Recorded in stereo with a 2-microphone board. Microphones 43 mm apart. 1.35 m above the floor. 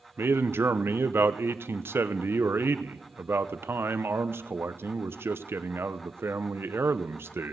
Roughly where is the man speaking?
Right.